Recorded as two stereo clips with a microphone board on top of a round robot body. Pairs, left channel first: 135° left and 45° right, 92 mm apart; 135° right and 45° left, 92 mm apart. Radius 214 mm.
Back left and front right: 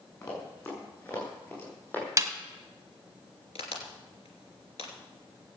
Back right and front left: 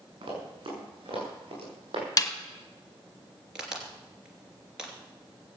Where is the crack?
130° left, 3 m.